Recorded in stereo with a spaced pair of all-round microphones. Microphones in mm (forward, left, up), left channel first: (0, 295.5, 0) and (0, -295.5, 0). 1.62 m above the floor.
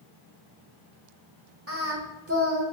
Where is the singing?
25° right (ahead or behind), 0.7 m.